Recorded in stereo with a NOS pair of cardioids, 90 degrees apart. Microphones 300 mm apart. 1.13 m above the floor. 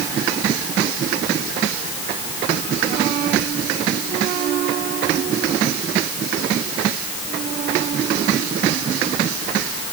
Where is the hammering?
No hammering in this recording.